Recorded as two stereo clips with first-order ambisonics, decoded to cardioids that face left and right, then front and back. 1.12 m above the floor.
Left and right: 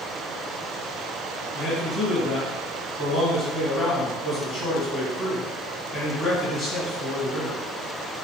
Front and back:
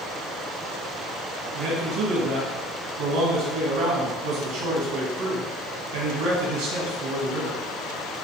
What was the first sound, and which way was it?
A man speaking, 155° left.